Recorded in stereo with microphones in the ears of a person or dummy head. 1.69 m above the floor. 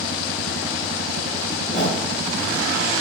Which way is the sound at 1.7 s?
5° left (ahead or behind).